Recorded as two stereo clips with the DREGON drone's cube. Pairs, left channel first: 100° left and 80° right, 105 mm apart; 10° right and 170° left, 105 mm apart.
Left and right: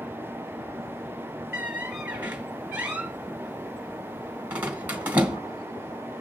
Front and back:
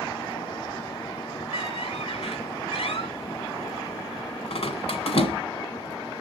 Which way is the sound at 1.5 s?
5° right.